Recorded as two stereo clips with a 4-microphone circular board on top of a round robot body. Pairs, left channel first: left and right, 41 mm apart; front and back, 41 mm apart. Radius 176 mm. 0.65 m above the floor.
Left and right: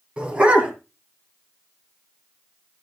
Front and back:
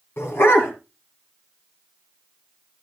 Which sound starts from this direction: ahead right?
A dog barking, at 0.2 s.